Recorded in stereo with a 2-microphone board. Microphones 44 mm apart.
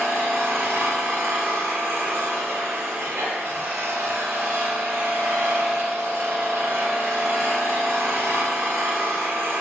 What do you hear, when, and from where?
0.0 s an engine running: 75° right (ahead or behind), 1.1 m